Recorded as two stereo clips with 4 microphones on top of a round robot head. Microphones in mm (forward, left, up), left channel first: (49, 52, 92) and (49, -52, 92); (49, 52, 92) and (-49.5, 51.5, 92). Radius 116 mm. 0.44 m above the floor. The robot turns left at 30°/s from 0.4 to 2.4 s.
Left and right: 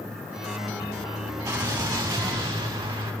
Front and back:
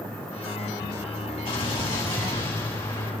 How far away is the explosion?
About 4.5 m.